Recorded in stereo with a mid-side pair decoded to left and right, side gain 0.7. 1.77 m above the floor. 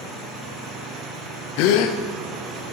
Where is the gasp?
70° left, 0.8 m.